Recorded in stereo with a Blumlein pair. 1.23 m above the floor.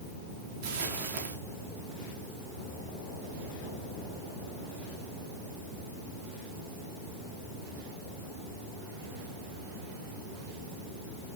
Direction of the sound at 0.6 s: 55° right.